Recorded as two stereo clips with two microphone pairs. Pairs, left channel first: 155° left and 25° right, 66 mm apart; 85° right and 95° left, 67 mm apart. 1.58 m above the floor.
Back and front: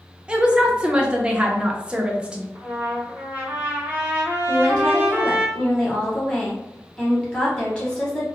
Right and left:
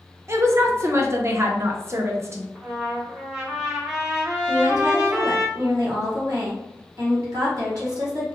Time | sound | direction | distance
0.3 | a woman speaking | 50° left | 0.5 m
2.5 | a trumpet | 20° left | 0.6 m
4.5 | a woman speaking | 75° left | 1.1 m